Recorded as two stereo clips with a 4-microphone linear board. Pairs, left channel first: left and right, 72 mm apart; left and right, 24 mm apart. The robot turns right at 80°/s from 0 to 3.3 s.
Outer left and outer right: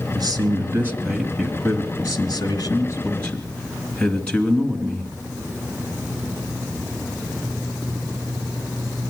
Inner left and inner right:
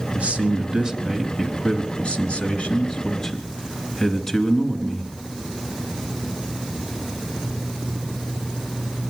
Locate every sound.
0.1 s a man speaking: 85° right, 2.5 m; by 5.1 s 165° left, 2.5 m